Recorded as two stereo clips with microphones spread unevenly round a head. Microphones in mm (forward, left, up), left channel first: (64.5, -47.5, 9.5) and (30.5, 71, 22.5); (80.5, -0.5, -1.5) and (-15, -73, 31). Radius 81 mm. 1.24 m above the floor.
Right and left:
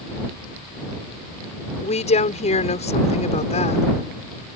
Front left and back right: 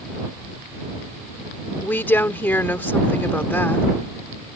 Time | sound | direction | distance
1.8 | a woman speaking | 40° right | ?